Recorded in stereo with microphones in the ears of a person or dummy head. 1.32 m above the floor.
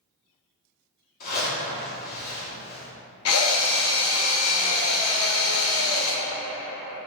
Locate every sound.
1.2 s a zipper: 50° left (ahead or behind), 1.6 m
3.2 s a drill: 70° left (ahead or behind), 0.6 m